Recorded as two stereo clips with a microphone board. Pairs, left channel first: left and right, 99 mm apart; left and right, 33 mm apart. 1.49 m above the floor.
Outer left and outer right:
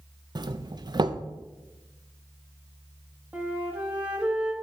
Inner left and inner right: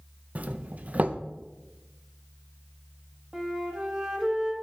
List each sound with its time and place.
0.3 s a doorbell: 45° right (ahead or behind), 0.5 m
3.3 s a flute: 15° right (ahead or behind), 1.4 m